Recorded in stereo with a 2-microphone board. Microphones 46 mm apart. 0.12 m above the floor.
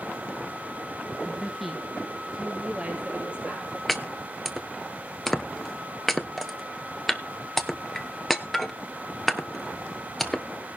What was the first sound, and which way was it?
A woman speaking, 15° left (ahead or behind).